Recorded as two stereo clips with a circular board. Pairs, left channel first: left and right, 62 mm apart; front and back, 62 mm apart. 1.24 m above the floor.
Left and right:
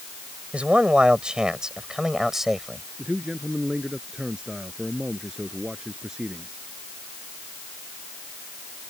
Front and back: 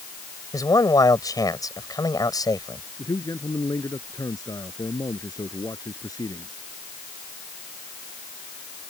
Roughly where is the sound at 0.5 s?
Ahead.